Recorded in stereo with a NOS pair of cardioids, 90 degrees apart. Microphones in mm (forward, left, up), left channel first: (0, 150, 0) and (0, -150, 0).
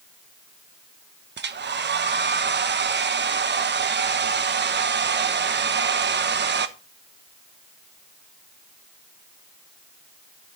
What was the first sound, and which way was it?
A hair dryer, 40° right.